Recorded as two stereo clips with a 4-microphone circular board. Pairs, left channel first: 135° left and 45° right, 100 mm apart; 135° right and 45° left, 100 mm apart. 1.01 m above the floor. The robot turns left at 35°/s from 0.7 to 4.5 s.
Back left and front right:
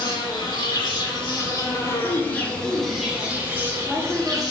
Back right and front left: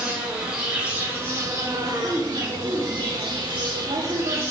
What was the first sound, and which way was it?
An insect, 120° left.